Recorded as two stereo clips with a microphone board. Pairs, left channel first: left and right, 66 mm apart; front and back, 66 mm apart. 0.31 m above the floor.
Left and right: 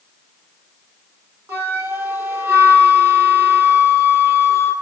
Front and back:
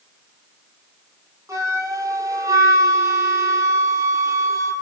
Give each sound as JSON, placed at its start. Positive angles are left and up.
{"t": 1.5, "sound": "a flute", "azimuth_deg": -140, "distance_m": 5.0}